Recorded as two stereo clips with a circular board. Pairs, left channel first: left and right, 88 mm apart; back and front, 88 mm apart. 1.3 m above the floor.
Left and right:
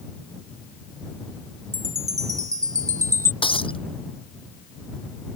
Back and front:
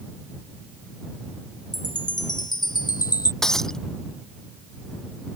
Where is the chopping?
I don't hear chopping.